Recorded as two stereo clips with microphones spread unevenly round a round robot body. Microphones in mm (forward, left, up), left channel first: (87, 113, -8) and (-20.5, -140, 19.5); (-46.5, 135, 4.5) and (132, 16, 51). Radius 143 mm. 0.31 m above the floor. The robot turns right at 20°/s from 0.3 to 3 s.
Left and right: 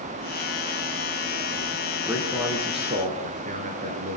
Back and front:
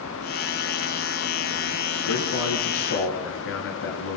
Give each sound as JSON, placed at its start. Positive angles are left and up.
{"t": 2.1, "sound": "a man speaking", "azimuth_deg": 160, "distance_m": 4.5}